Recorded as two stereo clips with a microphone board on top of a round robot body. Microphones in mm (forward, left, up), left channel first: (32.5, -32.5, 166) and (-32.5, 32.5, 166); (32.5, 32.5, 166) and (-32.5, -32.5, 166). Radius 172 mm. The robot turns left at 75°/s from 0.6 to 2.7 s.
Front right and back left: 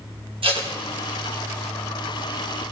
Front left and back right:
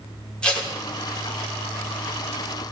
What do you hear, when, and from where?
0.4 s tape being pulled: 125° left, 3 m; by 0.7 s 115° left, 3 m